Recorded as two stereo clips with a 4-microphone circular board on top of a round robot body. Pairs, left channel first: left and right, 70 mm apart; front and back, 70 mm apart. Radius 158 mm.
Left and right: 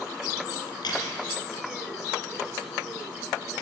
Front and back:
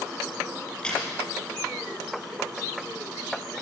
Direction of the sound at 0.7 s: 75° left.